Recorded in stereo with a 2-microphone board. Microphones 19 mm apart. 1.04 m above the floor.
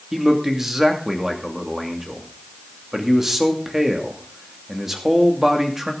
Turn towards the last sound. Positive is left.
turn(degrees=-20)  # may be behind; listen again after turning